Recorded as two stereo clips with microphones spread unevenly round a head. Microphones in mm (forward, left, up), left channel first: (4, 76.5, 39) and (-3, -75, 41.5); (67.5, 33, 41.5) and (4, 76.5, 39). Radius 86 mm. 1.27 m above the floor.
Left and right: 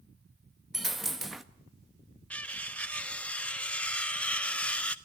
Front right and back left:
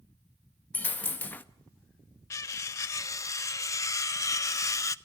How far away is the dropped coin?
About 0.6 m.